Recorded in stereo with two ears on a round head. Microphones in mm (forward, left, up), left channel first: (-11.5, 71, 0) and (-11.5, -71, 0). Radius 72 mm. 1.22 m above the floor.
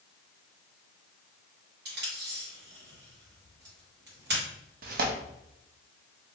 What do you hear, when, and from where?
1.9 s tape being pulled: 70° right (ahead or behind), 1.6 m
4.8 s tearing paper: 60° right (ahead or behind), 0.5 m